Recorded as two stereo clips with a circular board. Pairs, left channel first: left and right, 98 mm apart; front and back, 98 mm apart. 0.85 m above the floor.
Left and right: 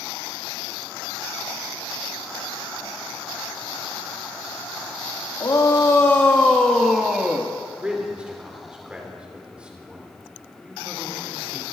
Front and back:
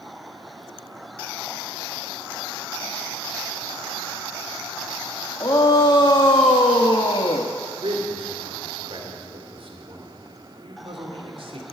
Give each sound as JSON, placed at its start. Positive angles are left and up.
{"t": 5.4, "sound": "a shout", "azimuth_deg": 45, "distance_m": 1.5}
{"t": 7.8, "sound": "a man speaking", "azimuth_deg": -170, "distance_m": 3.0}